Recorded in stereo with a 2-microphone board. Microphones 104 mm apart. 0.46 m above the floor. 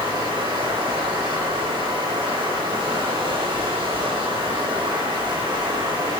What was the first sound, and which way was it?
Running water, 60° right (ahead or behind).